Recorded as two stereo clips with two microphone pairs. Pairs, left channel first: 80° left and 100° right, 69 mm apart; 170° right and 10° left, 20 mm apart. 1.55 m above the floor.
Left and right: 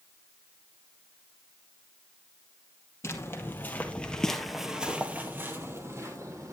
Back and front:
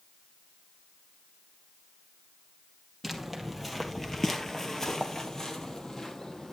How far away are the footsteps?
About 2 m.